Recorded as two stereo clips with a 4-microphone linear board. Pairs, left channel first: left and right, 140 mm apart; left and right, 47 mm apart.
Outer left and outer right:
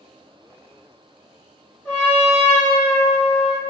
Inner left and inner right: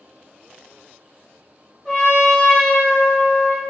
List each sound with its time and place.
1.9 s a trumpet: 15° left (ahead or behind), 1.8 m